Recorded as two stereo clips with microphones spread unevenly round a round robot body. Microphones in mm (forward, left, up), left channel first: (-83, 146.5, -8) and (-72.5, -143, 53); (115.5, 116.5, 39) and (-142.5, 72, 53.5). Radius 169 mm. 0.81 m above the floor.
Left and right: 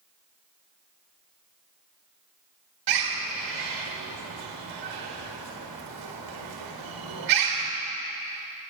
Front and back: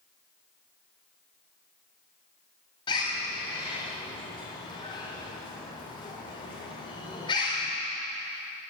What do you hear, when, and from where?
2.9 s a bird: 65° right, 1.5 m